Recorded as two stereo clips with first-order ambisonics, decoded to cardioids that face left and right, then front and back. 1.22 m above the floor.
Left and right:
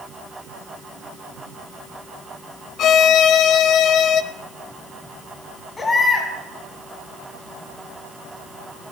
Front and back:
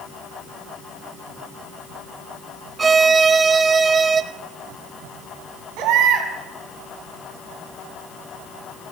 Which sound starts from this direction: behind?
A baby crying, at 5.8 s.